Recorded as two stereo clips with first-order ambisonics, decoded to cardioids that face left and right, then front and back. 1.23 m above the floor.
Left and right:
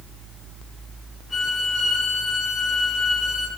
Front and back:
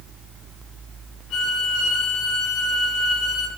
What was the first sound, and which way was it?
A violin, 10° left.